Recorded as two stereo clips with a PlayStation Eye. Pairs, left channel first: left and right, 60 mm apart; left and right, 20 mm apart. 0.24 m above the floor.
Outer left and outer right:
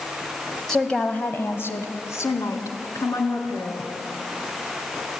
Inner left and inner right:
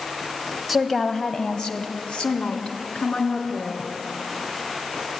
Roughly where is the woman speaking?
Centre.